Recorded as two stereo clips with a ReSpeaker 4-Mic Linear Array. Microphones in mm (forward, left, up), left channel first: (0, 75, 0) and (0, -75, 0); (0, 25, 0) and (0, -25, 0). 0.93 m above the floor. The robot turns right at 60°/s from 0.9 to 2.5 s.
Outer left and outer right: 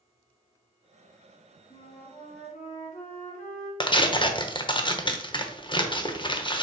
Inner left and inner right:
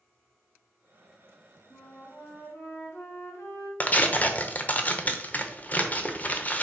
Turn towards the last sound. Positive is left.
turn(degrees=30)  # may be behind; listen again after turning